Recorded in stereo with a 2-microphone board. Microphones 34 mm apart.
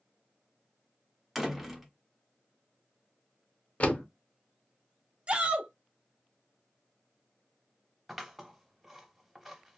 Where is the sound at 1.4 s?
5° right (ahead or behind), 0.6 m.